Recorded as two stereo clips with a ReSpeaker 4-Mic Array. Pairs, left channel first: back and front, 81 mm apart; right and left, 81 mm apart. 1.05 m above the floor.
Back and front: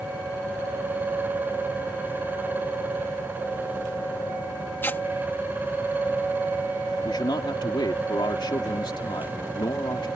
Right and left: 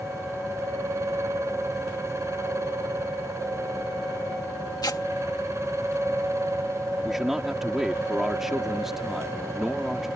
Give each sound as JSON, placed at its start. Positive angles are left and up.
{"t": 4.8, "sound": "tearing paper", "azimuth_deg": -120}
{"t": 7.0, "sound": "a man speaking", "azimuth_deg": 175}